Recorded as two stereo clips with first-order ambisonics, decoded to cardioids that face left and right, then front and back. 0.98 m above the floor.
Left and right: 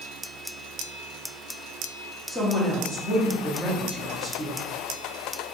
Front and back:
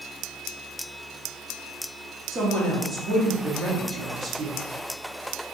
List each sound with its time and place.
2.3 s a woman speaking: 140° left, 0.7 m